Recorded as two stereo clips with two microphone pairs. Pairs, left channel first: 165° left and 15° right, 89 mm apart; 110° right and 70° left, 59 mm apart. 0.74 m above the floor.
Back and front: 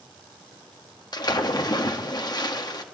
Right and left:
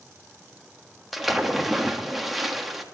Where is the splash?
155° left, 1.4 m.